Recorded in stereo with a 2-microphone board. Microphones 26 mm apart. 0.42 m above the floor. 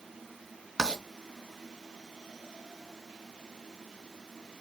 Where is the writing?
25° right (ahead or behind), 3 m.